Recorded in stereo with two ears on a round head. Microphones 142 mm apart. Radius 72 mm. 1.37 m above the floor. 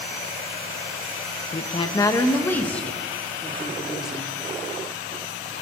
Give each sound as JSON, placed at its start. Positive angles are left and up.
{"t": 1.5, "sound": "a woman speaking", "side_deg": 40, "distance_m": 1.4}